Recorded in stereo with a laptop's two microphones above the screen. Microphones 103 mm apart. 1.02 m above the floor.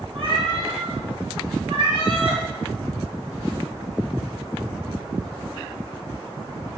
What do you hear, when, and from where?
0.1 s a cat meowing: 60° right (ahead or behind), 3.5 m